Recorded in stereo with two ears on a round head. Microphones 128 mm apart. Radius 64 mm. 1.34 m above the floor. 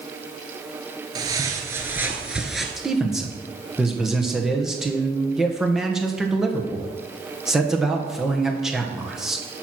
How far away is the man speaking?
About 1.2 m.